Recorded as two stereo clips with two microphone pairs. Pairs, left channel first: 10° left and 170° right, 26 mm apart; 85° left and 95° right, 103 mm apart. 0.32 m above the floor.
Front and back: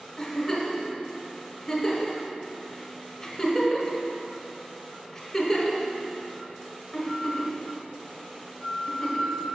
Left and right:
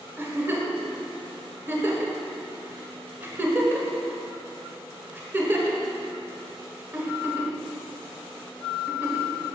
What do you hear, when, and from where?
0.2 s a giggle: 50° right, 1.2 m